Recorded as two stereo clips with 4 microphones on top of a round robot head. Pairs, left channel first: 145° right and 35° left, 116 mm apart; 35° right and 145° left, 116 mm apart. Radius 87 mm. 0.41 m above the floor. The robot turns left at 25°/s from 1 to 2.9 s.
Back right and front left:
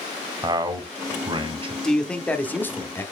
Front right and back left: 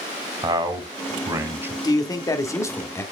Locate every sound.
0.4 s a man speaking: 90° left, 1.9 m; by 1.7 s 70° left, 1.9 m
1.8 s a man speaking: 60° right, 1.3 m; by 3.0 s 90° right, 1.3 m